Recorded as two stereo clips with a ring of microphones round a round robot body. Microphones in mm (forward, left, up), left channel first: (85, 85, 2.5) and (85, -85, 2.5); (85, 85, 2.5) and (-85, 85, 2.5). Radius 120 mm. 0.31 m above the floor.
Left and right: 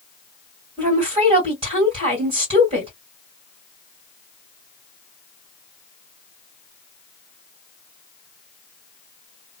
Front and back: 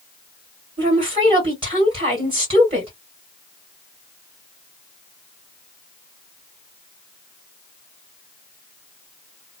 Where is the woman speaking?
130° right, 1.8 m.